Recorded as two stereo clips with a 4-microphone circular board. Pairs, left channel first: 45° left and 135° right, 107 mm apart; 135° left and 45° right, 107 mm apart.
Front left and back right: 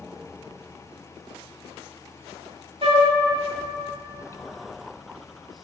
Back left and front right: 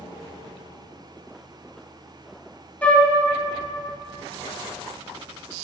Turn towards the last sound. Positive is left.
turn(degrees=-150)